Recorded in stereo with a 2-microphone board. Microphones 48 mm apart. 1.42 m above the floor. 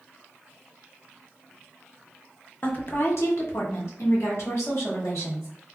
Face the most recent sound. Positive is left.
turn(degrees=80)